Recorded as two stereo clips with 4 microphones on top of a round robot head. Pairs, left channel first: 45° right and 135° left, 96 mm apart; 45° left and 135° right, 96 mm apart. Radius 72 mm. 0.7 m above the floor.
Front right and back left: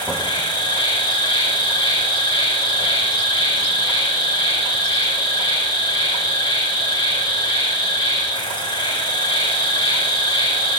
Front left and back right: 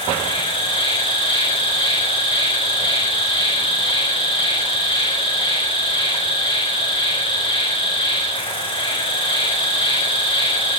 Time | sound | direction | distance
0.0 | an insect | straight ahead | 8 m